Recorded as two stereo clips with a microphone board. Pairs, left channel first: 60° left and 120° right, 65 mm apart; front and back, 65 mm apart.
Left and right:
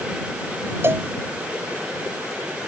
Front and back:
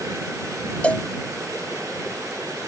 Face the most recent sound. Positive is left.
turn(degrees=-70)